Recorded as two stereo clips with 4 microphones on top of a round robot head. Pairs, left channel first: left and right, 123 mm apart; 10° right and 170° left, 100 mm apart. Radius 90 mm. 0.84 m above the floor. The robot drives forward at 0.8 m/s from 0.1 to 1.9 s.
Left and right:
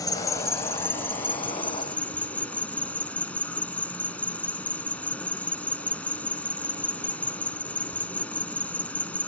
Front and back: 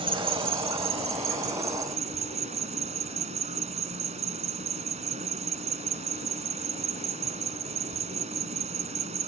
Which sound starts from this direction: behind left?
An insect, at 0.0 s.